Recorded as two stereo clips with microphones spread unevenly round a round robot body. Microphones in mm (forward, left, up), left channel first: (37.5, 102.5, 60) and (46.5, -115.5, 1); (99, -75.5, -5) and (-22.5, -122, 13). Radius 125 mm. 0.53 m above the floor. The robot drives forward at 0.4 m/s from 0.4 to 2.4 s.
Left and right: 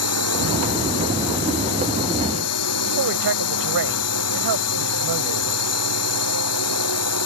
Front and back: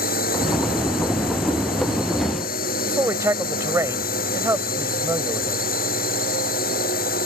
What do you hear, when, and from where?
0.0 s a drone: 75° left
2.9 s a man speaking: 90° right